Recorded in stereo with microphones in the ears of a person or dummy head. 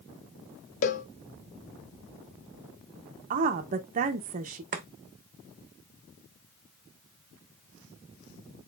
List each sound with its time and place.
0.8 s a cowbell: 40° left (ahead or behind), 0.5 m
3.3 s a woman speaking: 40° right (ahead or behind), 0.6 m
4.7 s chopping: 45° right (ahead or behind), 0.9 m